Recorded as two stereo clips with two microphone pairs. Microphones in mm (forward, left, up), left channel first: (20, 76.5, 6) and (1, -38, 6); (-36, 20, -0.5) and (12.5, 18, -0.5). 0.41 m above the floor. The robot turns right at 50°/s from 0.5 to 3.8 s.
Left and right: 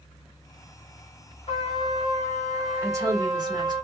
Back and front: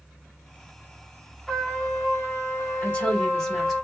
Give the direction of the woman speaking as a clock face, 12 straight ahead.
5 o'clock.